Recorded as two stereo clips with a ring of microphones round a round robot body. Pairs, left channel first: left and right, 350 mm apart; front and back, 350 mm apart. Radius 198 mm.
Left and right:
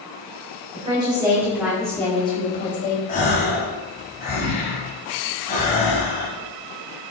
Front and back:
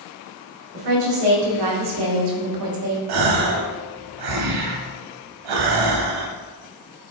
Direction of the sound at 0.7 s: 165° right.